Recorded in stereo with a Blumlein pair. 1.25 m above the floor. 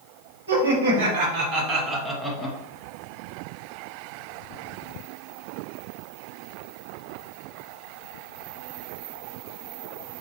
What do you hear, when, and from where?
0.5 s laughter: 60° right, 1.8 m; by 2.6 s 10° left, 1.2 m